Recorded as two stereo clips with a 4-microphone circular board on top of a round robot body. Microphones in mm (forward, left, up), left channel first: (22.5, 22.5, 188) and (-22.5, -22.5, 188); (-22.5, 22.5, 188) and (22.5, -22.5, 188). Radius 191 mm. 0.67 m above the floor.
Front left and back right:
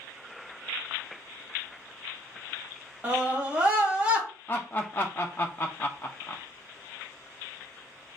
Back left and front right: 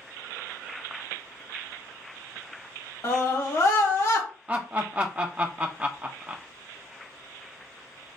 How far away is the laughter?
About 0.6 m.